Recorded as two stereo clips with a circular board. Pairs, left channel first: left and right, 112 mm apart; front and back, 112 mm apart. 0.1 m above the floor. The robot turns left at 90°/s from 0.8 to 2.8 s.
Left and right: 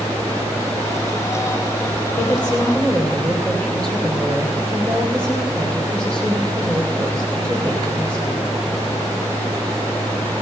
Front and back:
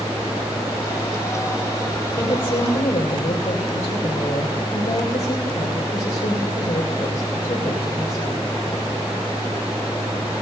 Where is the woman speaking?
65° left, 6.5 m; by 8.4 s 5° left, 6.5 m.